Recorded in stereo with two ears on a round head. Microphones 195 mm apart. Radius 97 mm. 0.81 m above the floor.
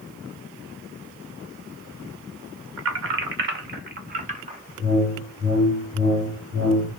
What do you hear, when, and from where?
2.8 s keys jangling: 65° right (ahead or behind), 1.7 m; by 4.6 s 30° right (ahead or behind), 1.6 m
4.8 s a whoosh: 55° right (ahead or behind), 4 m